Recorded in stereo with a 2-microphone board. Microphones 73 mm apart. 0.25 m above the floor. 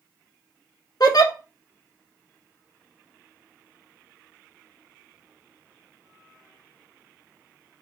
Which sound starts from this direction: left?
A giggle, at 1.0 s.